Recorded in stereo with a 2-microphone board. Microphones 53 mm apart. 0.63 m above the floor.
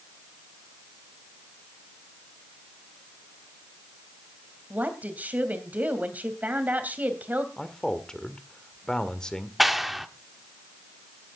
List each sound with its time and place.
4.7 s a woman speaking: 35° right (ahead or behind), 3 m
7.6 s a man speaking: 15° left (ahead or behind), 1.8 m
9.6 s a clap: 5° right (ahead or behind), 1.1 m